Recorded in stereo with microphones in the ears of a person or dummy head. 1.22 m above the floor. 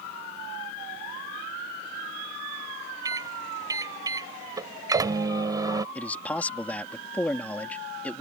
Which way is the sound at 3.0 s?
20° right (ahead or behind).